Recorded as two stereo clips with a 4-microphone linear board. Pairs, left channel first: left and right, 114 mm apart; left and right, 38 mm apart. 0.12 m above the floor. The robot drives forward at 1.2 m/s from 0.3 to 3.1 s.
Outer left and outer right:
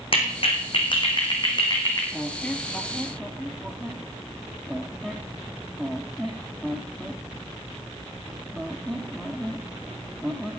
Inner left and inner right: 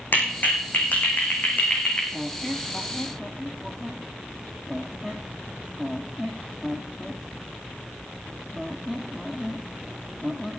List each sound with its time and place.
0.1 s a clap: 50° left (ahead or behind), 5.5 m; by 2.0 s 35° left (ahead or behind), 6.5 m
2.1 s a squeak: 10° left (ahead or behind), 1.1 m; by 10.6 s 5° left (ahead or behind), 2 m